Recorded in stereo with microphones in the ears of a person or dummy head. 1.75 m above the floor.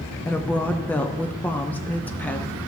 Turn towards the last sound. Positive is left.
turn(degrees=10)  # may be behind; listen again after turning